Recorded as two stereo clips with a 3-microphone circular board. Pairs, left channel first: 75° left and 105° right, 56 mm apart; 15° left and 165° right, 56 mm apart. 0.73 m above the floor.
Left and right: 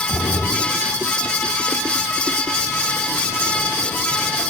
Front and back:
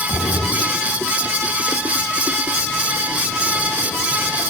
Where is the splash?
45° left, 1.0 m.